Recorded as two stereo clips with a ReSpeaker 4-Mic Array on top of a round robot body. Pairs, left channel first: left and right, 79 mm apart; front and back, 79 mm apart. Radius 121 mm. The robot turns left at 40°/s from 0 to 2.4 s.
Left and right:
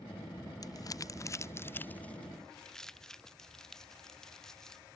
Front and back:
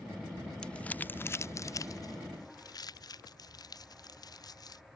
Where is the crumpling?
80° left; by 4.8 s 5° left.